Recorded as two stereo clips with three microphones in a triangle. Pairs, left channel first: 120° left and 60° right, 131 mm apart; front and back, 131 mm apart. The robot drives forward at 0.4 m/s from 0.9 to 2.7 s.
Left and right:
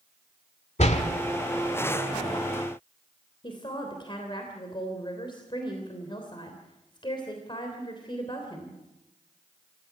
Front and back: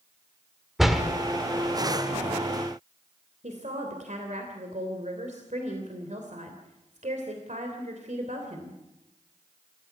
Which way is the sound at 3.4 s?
170° left.